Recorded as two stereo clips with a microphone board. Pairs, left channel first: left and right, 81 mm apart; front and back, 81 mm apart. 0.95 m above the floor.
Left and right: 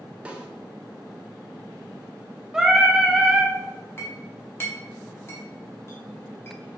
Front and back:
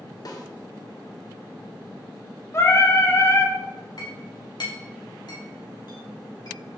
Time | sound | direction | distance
0.2 | a snare drum | 20° right | 0.7 m
2.5 | singing | 15° right | 0.7 m
4.0 | a clink | 30° left | 1.2 m